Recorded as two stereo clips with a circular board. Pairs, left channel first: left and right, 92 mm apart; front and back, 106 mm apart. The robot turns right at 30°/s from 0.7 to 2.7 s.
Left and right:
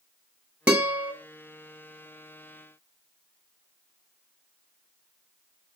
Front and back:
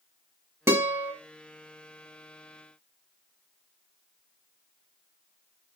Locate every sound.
0.7 s a guitar: 150° right, 0.7 m; by 1.1 s 135° right, 0.7 m